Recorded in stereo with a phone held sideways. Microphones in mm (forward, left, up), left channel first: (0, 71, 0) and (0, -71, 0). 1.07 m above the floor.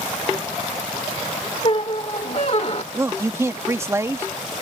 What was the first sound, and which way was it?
A squeak, 45° left (ahead or behind).